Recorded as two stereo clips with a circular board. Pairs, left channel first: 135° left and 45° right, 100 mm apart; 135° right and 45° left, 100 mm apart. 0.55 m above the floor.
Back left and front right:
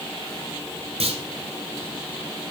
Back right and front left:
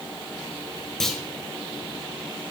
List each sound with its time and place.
1.0 s a clunk: 50° right, 1.5 m